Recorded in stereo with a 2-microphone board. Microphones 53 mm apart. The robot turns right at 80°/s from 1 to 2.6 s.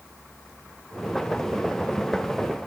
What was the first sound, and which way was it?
Only background noise.